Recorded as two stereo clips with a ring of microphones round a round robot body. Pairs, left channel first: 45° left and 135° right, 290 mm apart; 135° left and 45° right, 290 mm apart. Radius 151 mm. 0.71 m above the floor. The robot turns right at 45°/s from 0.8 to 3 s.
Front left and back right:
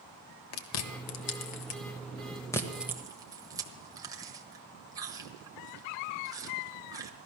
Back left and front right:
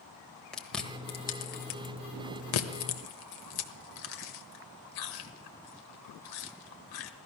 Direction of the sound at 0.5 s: 50° left.